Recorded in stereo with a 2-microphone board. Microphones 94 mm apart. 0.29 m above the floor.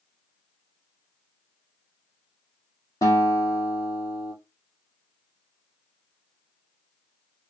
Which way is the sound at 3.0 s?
35° left (ahead or behind).